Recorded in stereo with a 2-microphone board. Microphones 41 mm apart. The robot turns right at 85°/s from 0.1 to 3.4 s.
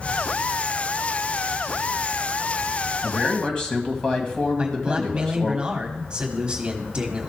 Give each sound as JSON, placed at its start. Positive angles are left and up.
{"t": 3.0, "sound": "a man speaking", "side_deg": 10, "distance_m": 1.6}
{"t": 4.6, "sound": "a man speaking", "side_deg": -25, "distance_m": 1.2}